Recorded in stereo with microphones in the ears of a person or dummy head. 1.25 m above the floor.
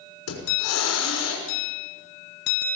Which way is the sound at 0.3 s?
80° left.